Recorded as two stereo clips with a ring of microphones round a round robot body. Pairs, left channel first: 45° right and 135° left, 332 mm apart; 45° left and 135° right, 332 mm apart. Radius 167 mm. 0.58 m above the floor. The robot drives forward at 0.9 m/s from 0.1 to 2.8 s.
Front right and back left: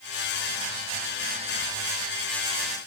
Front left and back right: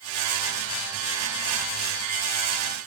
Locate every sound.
Only background noise.